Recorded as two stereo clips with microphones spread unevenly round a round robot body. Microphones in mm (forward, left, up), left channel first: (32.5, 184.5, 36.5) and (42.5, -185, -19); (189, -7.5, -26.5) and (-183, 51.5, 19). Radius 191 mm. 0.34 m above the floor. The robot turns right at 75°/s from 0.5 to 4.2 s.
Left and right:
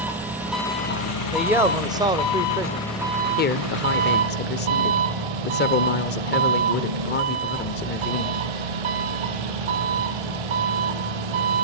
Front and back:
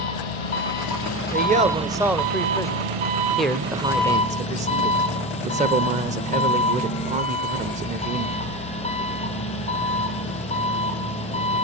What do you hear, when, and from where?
0.0 s an engine running: straight ahead, 2.5 m; by 11.6 s 85° right, 2.5 m
1.3 s a man speaking: 150° right, 0.8 m; by 2.9 s 35° right, 0.8 m
3.4 s a man speaking: 55° left, 1.0 m; by 8.4 s 115° left, 1.0 m